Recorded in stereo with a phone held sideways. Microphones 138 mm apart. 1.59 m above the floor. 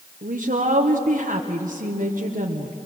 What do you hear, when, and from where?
0.2 s a woman speaking: 75° right (ahead or behind), 1.3 m